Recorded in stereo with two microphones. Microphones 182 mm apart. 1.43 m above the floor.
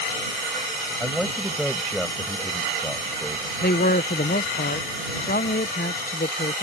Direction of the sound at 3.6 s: 60° left (ahead or behind).